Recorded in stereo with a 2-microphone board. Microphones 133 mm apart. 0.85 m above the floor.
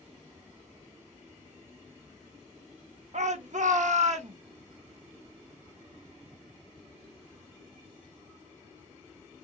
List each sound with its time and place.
3.1 s a shout: 60° right (ahead or behind), 0.9 m; by 4.4 s 55° right (ahead or behind), 1.0 m